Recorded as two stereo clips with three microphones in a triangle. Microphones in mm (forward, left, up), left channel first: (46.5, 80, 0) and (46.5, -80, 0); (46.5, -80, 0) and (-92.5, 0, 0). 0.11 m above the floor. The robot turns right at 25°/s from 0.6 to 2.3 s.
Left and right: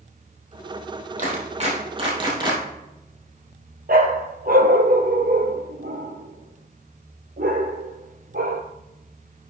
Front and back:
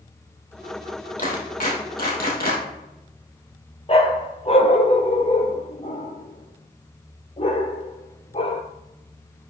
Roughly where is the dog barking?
Right.